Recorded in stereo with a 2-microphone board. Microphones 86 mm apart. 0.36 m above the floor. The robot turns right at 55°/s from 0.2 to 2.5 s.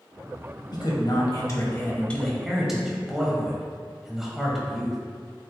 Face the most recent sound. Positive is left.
turn(degrees=-175)